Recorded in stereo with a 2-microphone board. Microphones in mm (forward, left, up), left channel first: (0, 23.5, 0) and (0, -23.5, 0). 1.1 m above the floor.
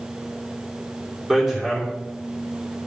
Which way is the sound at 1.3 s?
10° right (ahead or behind).